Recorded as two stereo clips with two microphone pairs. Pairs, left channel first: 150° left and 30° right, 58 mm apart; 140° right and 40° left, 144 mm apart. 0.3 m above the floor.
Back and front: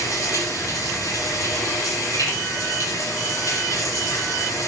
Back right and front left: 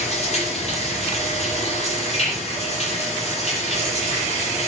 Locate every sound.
0.0 s running water: 175° left, 8.5 m